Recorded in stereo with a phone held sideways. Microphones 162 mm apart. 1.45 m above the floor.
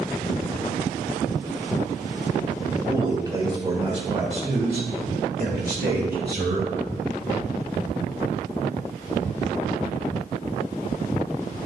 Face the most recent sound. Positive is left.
turn(degrees=-85)